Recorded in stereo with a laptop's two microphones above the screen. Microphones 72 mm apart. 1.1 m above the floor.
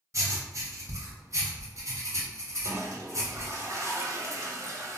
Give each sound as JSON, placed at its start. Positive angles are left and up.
{"t": 0.1, "sound": "writing", "side_deg": -50, "distance_m": 1.4}
{"t": 2.6, "sound": "a toilet flushing", "side_deg": -50, "distance_m": 0.7}